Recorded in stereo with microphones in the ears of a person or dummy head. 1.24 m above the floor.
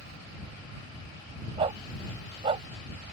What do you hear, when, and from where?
1.6 s a dog barking: 30° right (ahead or behind)